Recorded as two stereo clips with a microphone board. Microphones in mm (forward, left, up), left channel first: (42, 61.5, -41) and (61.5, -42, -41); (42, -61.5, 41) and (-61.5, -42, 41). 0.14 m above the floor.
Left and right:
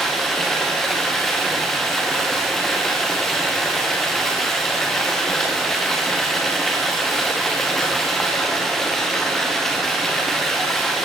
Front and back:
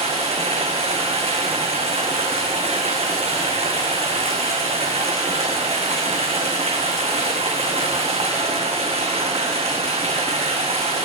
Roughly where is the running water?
Behind.